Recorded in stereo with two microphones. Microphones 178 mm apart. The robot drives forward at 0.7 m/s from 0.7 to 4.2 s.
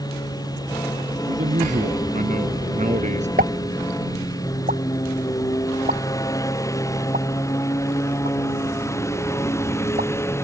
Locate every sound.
0.0 s a lawn mower: 20° left (ahead or behind); by 10.4 s 15° left (ahead or behind)
1.3 s a man speaking: 45° right (ahead or behind); by 3.3 s 40° right (ahead or behind)
3.4 s a pop: 55° right (ahead or behind)